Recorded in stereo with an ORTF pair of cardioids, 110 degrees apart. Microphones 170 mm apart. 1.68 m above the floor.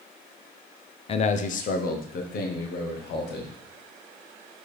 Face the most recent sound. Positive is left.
turn(degrees=75)